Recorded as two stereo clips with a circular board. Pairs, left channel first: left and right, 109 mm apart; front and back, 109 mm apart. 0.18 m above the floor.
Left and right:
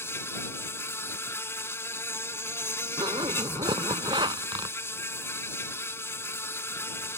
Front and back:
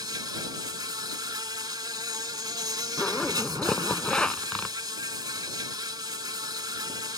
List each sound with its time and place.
0.0 s an insect: 150° left
3.0 s a zipper: 80° right